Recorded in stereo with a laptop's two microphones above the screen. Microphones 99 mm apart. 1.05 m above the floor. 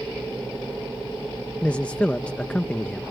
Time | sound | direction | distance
1.6 | a man speaking | 10° left (ahead or behind) | ?